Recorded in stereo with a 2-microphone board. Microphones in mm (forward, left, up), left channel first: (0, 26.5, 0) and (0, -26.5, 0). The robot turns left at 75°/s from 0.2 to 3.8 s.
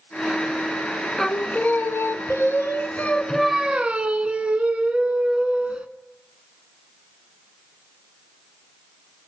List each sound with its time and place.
1.2 s singing: 170° left, 0.5 m; by 5.9 s 25° right, 0.5 m